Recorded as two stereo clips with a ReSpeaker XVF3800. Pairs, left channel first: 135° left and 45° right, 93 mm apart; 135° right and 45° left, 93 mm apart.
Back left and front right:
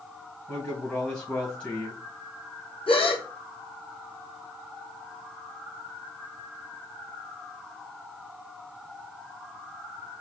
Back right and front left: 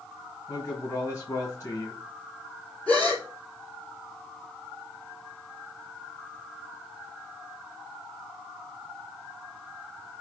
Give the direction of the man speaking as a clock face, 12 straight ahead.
5 o'clock.